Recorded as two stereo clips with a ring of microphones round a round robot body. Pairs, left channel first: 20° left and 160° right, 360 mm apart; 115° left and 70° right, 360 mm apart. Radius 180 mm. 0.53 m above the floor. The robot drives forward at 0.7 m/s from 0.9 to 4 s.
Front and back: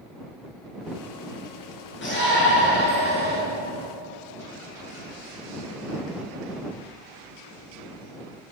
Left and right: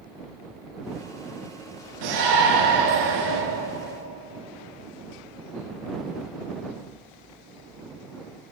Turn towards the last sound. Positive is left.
turn(degrees=-45)